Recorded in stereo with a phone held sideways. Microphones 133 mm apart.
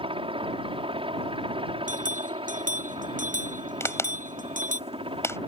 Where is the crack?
20° left (ahead or behind).